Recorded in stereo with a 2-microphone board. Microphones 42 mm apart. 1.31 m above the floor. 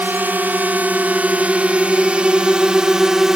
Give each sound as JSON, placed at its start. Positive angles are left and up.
{"t": 0.0, "sound": "a drone", "side_deg": -50}